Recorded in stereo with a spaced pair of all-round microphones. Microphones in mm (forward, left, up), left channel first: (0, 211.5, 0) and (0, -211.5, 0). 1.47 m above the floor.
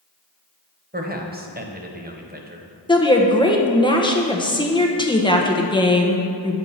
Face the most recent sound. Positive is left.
turn(degrees=10)  # may be behind; listen again after turning